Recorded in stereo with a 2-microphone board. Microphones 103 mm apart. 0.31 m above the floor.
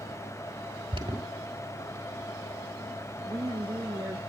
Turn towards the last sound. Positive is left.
turn(degrees=-25)  # may be behind; listen again after turning